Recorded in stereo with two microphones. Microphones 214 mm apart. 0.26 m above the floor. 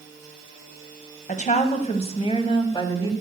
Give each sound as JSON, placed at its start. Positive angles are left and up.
{"t": 1.3, "sound": "a woman speaking", "side_deg": 35, "distance_m": 1.5}